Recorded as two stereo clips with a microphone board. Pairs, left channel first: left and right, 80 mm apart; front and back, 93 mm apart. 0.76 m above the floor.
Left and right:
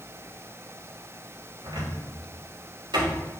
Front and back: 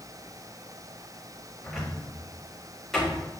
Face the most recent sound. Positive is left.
turn(degrees=-90)